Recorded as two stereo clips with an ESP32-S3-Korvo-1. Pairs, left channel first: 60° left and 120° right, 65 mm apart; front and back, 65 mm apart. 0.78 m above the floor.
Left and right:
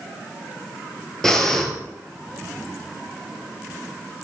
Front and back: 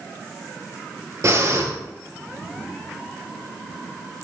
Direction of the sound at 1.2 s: 145° left.